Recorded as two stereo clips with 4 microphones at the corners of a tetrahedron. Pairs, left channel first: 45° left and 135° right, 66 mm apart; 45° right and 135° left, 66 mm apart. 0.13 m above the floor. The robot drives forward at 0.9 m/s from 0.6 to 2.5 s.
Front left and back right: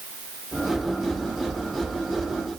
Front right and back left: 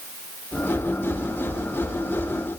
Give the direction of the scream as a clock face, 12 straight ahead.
No scream in this recording.